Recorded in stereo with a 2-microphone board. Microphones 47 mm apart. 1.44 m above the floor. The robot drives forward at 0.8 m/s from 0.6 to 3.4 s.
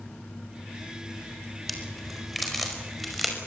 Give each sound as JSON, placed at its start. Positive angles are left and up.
{"t": 1.7, "sound": "a crack", "side_deg": 0, "distance_m": 4.0}